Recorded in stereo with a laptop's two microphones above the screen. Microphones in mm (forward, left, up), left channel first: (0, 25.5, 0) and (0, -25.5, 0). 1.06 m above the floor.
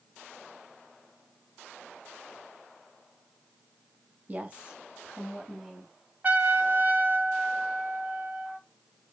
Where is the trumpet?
35° right (ahead or behind), 0.6 m.